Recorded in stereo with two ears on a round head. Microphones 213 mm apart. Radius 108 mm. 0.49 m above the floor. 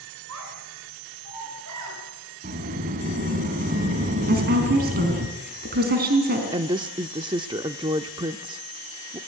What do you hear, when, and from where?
0.3 s a child speaking: 70° right (ahead or behind), 5 m; by 2.0 s 85° right, 6.5 m
2.4 s a sliding door: 35° right (ahead or behind), 2 m
4.3 s a woman speaking: 45° right (ahead or behind), 4.5 m
6.5 s a woman speaking: 20° right (ahead or behind), 0.7 m